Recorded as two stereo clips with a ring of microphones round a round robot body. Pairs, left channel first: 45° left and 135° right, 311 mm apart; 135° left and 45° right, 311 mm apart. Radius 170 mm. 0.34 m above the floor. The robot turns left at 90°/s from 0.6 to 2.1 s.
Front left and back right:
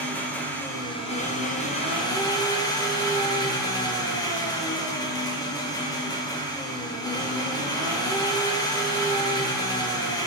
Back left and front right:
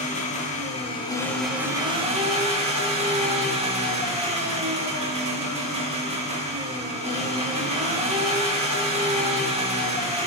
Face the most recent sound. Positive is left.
turn(degrees=-15)